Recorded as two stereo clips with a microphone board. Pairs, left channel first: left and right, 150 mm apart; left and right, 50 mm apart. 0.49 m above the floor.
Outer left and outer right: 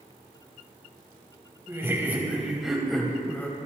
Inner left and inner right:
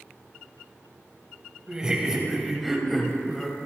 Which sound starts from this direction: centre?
Laughter, at 1.7 s.